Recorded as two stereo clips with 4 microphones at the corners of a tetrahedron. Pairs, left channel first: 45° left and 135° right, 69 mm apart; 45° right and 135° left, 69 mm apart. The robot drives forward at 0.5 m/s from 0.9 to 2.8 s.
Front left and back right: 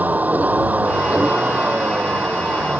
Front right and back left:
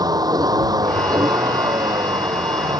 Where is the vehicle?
160° left; by 2.8 s 155° left.